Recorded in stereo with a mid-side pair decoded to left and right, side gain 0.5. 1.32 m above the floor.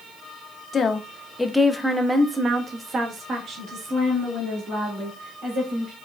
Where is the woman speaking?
40° left, 0.8 m; by 5.9 s 60° right, 3 m.